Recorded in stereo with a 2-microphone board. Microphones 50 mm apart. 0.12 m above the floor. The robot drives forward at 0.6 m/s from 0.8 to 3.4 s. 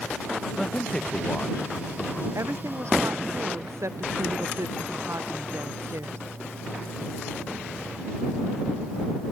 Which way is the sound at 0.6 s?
15° left (ahead or behind).